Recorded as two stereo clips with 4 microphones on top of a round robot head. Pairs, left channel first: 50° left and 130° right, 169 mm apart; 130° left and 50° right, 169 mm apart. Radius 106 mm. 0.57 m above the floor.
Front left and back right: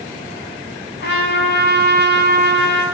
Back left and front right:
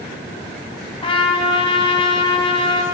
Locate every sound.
1.0 s a trumpet: 70° left, 6 m